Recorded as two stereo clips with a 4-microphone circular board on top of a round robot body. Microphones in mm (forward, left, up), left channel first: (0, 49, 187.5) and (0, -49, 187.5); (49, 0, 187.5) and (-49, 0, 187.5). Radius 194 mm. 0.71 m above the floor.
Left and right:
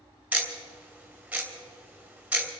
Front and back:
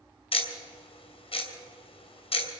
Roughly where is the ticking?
Ahead.